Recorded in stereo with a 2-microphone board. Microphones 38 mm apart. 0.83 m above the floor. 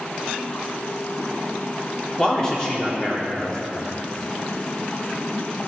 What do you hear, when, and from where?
2.2 s a man speaking: 15° left (ahead or behind), 1.7 m